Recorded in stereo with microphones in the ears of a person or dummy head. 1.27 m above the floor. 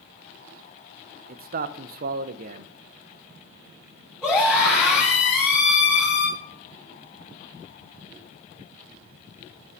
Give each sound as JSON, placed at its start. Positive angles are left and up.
{"t": 1.3, "sound": "a man speaking", "side_deg": -50, "distance_m": 0.7}
{"t": 4.2, "sound": "a scream", "side_deg": 10, "distance_m": 4.0}